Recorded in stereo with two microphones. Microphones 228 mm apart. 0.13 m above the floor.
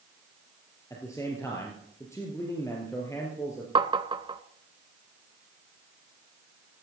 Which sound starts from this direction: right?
Tapping, at 3.8 s.